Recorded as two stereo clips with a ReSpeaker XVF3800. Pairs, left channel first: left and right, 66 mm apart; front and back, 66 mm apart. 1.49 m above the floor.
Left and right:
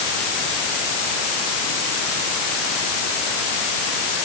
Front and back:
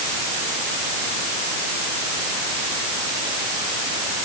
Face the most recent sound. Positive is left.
No sound to turn to.